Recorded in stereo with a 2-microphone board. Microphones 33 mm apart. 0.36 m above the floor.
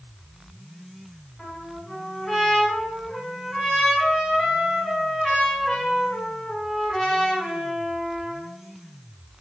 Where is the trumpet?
15° left (ahead or behind), 1.2 m.